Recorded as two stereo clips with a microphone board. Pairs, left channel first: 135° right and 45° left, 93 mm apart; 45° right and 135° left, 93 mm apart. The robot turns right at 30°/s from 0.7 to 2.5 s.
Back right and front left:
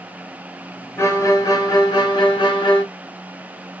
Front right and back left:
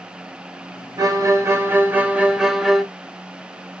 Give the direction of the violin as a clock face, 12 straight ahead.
6 o'clock.